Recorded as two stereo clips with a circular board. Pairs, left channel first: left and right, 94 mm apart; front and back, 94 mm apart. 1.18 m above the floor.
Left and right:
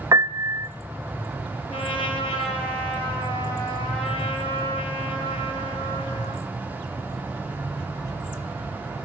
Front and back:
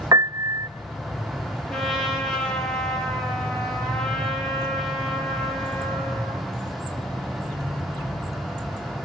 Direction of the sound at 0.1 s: 135° right.